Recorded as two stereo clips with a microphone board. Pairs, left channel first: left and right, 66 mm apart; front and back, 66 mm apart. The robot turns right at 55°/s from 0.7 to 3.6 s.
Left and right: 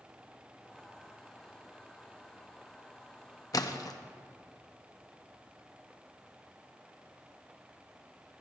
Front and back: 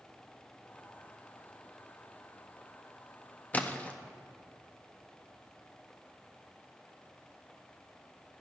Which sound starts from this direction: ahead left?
A splash, at 3.5 s.